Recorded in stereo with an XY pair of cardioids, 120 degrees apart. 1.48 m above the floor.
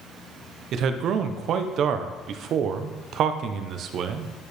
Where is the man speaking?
60° right, 0.7 m.